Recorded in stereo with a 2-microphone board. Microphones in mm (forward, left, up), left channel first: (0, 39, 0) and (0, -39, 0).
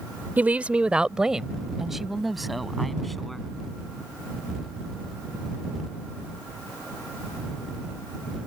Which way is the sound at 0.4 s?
25° right (ahead or behind).